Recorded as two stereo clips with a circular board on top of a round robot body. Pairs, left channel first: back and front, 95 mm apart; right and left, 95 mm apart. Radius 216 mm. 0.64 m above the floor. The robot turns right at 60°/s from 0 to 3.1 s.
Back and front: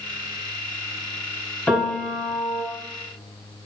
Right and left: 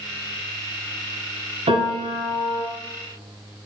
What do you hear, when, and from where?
1.7 s a piano: 105° left, 2.5 m; by 2.6 s 160° left, 2.5 m